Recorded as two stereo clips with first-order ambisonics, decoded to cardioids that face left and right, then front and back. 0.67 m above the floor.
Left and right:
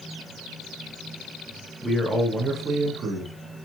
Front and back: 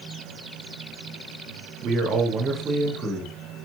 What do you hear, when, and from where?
1.8 s a man speaking: 175° right, 1.1 m; by 3.3 s 95° right, 1.0 m